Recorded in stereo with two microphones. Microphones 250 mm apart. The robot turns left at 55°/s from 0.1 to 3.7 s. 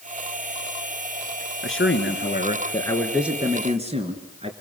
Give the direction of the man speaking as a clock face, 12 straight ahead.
9 o'clock.